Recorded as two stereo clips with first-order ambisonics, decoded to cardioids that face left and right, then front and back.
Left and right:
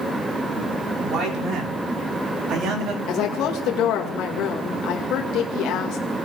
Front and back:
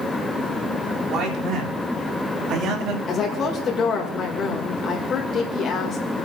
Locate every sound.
1.0 s a man speaking: 135° right, 4 m
3.1 s a woman speaking: 55° left, 1.7 m